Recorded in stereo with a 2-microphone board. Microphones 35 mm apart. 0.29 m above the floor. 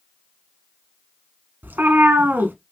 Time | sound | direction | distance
1.6 | a cat meowing | 80° right | 0.7 m